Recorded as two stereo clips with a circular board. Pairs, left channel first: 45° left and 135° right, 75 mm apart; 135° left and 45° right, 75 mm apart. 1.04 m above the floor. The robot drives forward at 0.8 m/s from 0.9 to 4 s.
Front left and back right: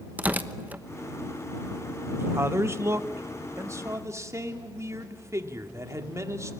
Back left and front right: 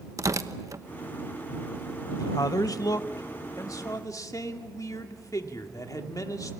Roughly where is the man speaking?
Behind.